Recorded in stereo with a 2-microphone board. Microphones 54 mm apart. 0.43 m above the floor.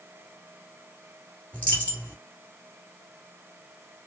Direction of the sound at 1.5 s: 25° left (ahead or behind).